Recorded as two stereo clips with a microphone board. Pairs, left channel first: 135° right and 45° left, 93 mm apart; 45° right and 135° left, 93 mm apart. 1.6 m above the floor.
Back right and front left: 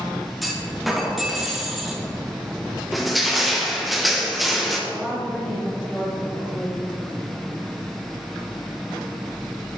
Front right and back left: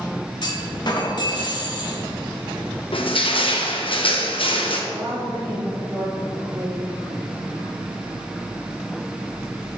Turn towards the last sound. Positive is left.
turn(degrees=140)